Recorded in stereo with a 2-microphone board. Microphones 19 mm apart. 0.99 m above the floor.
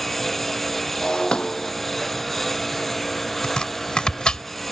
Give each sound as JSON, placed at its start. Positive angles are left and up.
{"t": 0.0, "sound": "a lawn mower", "side_deg": 10}
{"t": 1.0, "sound": "breaking glass", "side_deg": 55}
{"t": 3.4, "sound": "chopping", "side_deg": 55}